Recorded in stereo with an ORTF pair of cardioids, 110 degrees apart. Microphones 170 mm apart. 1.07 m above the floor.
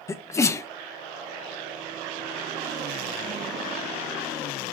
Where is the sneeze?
20° left, 0.5 m.